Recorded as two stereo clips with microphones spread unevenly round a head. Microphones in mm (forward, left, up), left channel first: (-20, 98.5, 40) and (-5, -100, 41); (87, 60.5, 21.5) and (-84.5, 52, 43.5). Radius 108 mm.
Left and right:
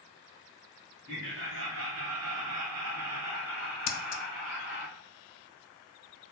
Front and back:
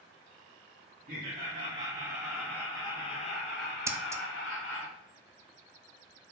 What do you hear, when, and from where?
1.1 s laughter: 125° right, 1.4 m; by 4.9 s 30° right, 1.6 m
3.9 s scissors: 110° left, 0.5 m